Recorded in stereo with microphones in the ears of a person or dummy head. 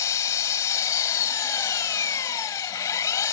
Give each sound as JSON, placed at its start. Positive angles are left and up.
{"t": 0.0, "sound": "an engine running", "side_deg": 25}